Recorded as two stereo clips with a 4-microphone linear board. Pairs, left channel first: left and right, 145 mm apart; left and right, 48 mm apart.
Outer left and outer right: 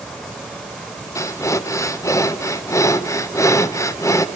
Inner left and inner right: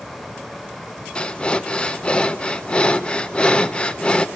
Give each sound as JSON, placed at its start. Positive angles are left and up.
{"t": 1.1, "sound": "breathing", "side_deg": 20, "distance_m": 0.8}